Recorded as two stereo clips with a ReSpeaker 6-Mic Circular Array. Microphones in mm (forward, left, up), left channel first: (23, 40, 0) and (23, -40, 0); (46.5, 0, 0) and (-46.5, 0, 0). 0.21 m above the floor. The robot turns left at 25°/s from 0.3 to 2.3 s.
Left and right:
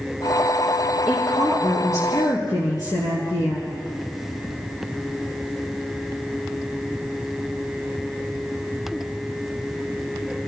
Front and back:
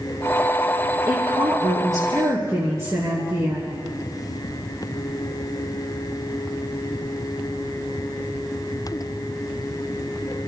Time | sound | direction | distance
1.1 | a woman speaking | 155° left | 3 m